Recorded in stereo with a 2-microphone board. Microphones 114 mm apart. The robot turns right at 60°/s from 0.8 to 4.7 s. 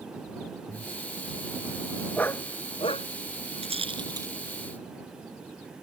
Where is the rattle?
65° right (ahead or behind); by 4.3 s 25° right (ahead or behind).